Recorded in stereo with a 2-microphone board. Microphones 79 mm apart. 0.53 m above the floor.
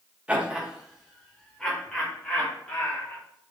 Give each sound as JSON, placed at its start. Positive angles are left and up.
{"t": 0.3, "sound": "laughter", "side_deg": -15, "distance_m": 1.0}